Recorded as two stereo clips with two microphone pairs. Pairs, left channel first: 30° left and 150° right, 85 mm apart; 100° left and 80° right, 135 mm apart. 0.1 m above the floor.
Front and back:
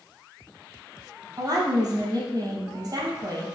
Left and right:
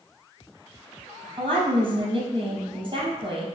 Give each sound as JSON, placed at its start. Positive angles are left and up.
{"t": 1.4, "sound": "a woman speaking", "azimuth_deg": -125, "distance_m": 3.0}